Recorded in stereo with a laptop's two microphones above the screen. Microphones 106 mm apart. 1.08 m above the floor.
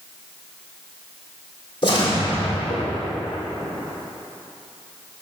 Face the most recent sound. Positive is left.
turn(degrees=45)  # may be behind; listen again after turning